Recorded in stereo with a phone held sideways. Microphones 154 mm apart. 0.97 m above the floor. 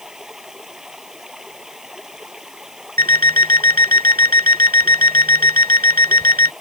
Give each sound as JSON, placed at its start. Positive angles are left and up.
{"t": 0.0, "sound": "running water", "side_deg": -5}
{"t": 3.0, "sound": "an alarm clock", "side_deg": -65}